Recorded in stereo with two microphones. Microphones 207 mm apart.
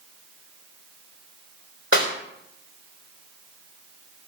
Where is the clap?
75° left (ahead or behind), 3 m.